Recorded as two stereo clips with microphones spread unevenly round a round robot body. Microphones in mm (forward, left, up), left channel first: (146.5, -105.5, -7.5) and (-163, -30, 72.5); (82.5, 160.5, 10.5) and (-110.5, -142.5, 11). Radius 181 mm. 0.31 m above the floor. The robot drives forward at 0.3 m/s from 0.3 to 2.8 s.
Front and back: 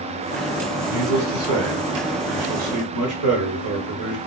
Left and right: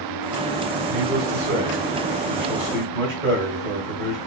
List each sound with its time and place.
0.9 s a man speaking: 165° right, 1.4 m; by 4.2 s 170° right, 1.8 m